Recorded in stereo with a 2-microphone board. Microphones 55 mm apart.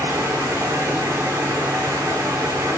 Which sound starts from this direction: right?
Running water, at 0.0 s.